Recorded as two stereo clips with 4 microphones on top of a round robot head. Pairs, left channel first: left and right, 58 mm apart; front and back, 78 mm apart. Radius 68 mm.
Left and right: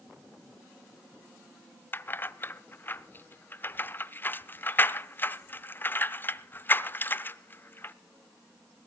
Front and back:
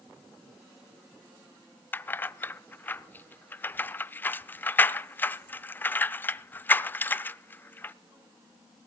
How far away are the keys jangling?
About 0.6 m.